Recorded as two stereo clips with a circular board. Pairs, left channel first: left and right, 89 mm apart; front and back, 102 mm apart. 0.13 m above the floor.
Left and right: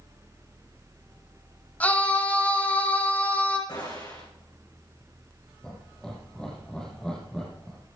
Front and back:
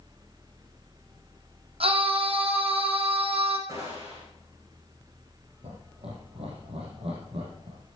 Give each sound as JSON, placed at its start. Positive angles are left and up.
{"t": 1.8, "sound": "a scream", "azimuth_deg": 165, "distance_m": 4.5}
{"t": 3.7, "sound": "a gunshot", "azimuth_deg": 130, "distance_m": 8.0}
{"t": 5.6, "sound": "laughter", "azimuth_deg": 170, "distance_m": 4.5}